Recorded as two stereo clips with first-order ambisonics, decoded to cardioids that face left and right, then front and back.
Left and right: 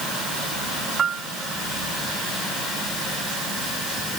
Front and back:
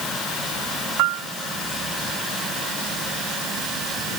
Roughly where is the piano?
Behind right.